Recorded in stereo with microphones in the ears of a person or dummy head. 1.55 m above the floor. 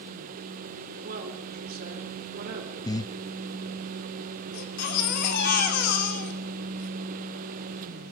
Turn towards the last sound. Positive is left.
turn(degrees=55)  # may be behind; listen again after turning